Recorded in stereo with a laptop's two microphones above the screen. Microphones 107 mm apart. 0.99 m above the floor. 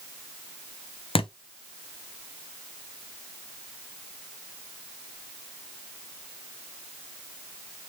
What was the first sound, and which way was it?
A thud, 60° left (ahead or behind).